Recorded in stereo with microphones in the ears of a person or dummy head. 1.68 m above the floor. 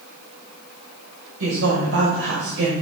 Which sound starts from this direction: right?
A woman speaking, at 1.4 s.